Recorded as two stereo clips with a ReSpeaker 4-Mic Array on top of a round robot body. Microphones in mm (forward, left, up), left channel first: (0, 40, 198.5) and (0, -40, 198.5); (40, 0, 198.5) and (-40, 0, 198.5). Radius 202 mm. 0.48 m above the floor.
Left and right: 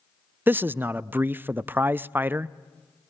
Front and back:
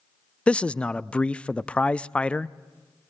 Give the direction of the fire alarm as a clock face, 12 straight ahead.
No fire alarm in this recording.